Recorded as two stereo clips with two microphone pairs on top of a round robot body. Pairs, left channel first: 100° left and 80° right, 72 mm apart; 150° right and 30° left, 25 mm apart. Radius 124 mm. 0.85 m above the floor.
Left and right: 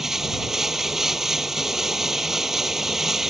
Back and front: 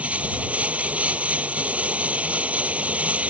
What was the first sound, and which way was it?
Running water, 5° left.